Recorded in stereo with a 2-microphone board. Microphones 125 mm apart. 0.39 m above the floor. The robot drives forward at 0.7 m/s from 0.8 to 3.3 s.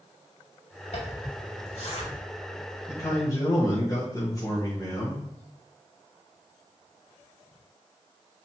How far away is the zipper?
About 2.5 m.